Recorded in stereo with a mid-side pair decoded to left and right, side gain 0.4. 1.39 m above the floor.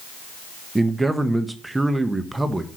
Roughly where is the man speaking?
Ahead.